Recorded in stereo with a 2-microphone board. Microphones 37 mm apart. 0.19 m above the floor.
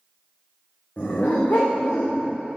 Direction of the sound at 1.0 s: 45° left (ahead or behind).